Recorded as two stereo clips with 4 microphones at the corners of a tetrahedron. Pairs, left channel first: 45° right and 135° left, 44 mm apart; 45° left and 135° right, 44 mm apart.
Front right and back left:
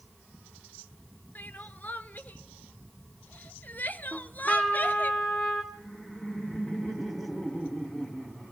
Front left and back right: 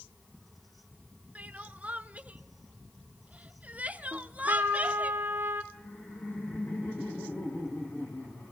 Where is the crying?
85° right, 0.6 m.